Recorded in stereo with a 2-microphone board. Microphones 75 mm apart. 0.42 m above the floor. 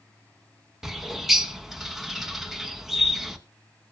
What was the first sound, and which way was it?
A bird, 5° right (ahead or behind).